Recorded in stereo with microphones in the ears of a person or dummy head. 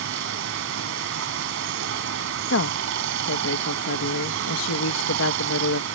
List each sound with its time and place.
0.0 s running water: 65° right (ahead or behind)
2.5 s a woman speaking: 75° left (ahead or behind)